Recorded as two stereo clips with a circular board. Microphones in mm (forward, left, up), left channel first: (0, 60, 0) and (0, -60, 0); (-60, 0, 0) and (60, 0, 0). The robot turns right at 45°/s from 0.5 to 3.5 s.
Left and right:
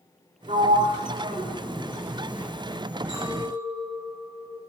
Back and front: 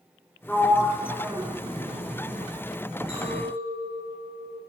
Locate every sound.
0.5 s a sliding door: 100° right, 0.9 m; by 2.5 s 10° right, 0.9 m
3.1 s a clink: 40° right, 2.5 m; by 4.6 s 20° right, 2.5 m